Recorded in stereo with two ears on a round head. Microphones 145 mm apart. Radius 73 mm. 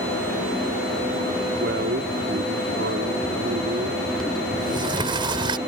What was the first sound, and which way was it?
A man speaking, 80° right.